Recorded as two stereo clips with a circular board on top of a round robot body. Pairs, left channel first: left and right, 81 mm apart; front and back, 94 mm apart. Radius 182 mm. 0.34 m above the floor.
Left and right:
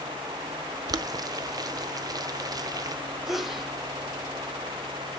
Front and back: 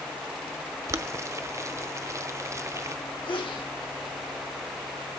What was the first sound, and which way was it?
Boiling, 125° right.